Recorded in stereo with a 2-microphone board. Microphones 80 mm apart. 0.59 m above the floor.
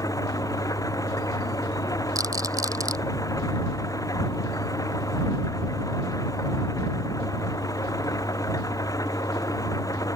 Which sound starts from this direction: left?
An engine running, at 0.0 s.